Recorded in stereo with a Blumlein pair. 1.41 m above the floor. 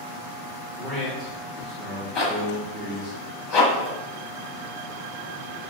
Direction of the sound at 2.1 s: 25° left.